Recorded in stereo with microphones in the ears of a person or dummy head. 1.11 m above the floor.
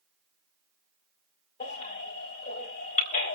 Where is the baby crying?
40° left (ahead or behind), 3 m.